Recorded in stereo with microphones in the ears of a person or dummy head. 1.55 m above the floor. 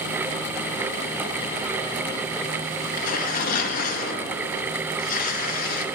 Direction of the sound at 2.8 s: 45° left (ahead or behind).